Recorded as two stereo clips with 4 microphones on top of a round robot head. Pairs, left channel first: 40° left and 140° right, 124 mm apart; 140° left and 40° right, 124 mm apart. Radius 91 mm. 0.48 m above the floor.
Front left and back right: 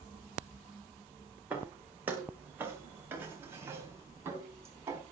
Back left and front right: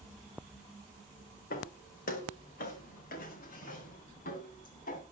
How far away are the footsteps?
About 6 m.